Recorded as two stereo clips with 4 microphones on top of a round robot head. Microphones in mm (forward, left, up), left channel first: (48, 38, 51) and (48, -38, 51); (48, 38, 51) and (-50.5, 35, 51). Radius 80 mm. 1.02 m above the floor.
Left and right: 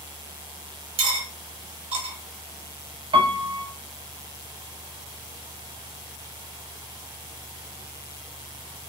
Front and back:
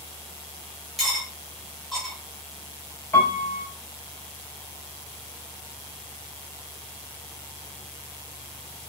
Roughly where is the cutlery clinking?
Right.